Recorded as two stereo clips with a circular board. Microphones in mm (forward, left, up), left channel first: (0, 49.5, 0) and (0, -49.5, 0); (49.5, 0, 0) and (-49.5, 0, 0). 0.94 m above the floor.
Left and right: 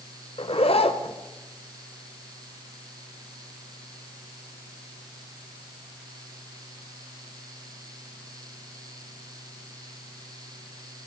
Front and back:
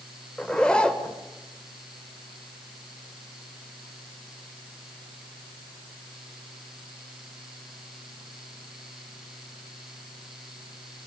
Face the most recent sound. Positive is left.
turn(degrees=85)